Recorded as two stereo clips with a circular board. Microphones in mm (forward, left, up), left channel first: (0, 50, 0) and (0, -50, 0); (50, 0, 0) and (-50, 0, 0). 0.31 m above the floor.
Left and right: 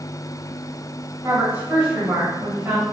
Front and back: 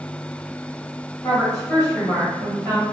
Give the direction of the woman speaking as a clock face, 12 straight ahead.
1 o'clock.